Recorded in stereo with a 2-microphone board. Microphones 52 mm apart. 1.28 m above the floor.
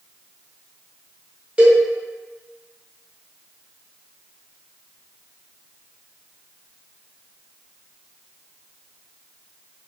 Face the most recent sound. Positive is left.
turn(degrees=-25)  # may be behind; listen again after turning